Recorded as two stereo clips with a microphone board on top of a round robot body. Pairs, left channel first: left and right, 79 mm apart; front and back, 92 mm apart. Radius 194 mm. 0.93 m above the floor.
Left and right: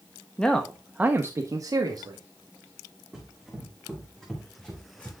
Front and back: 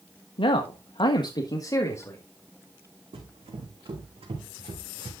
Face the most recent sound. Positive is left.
turn(degrees=165)